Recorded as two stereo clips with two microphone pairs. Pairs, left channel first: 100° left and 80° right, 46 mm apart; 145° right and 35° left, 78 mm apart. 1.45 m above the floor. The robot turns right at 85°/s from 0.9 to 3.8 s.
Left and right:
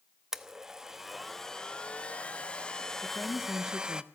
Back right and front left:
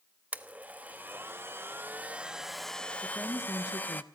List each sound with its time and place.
0.3 s a blender: 15° right, 0.9 m; by 4.0 s 125° right, 0.9 m
3.0 s a woman speaking: 130° left, 1.4 m; by 4.0 s 165° right, 1.4 m